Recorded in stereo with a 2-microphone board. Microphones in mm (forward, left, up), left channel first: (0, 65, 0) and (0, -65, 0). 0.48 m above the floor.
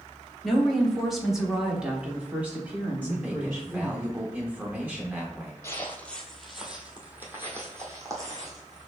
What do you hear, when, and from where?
0.4 s a woman speaking: centre (ahead or behind), 1.5 m; by 4.0 s 10° right (ahead or behind), 1.7 m
3.0 s a man speaking: 15° right (ahead or behind), 0.9 m
5.6 s footsteps: 20° left (ahead or behind), 0.9 m; by 8.9 s 30° right (ahead or behind), 2 m